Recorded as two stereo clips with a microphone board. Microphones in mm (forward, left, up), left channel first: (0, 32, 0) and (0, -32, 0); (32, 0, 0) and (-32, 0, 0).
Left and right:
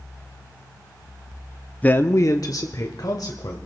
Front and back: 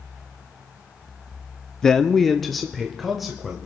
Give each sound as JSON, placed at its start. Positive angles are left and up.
{"t": 1.8, "sound": "a man speaking", "azimuth_deg": 65, "distance_m": 0.6}